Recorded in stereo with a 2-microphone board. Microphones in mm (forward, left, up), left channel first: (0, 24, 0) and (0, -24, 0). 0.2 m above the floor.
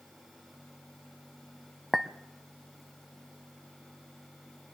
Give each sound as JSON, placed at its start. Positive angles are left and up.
{"t": 1.9, "sound": "a clink", "side_deg": -10, "distance_m": 0.6}